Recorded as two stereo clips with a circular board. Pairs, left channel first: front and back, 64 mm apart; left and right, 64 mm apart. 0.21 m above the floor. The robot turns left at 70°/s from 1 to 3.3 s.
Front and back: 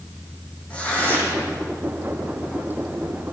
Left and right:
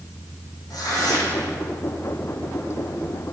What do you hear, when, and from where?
0.7 s tearing paper: 70° left, 8.5 m; by 1.5 s 30° left, 8.5 m